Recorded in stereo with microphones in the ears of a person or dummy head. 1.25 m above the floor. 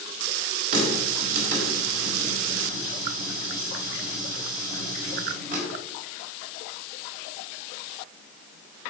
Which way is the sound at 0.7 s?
55° right (ahead or behind).